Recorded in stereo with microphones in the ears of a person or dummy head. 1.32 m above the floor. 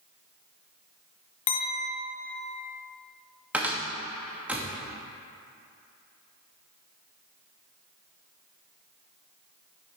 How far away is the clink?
About 0.9 m.